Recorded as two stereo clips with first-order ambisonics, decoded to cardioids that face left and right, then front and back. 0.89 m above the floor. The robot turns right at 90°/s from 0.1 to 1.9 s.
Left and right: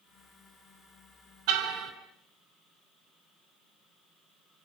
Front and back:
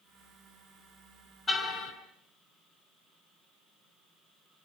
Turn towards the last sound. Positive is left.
turn(degrees=-30)